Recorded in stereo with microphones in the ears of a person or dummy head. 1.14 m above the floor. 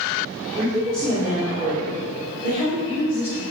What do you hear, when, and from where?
0.5 s a woman speaking: 5° left (ahead or behind), 2 m; by 3.4 s 20° left (ahead or behind), 5 m